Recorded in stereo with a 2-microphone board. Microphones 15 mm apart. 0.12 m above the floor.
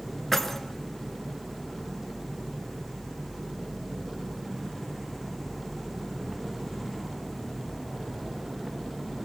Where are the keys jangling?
20° left (ahead or behind), 1.1 m.